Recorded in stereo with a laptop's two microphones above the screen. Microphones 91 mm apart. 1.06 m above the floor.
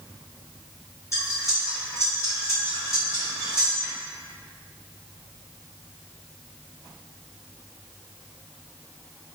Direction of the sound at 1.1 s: 30° left (ahead or behind).